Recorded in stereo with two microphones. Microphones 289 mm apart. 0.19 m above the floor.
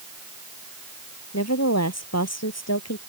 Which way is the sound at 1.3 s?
60° left (ahead or behind).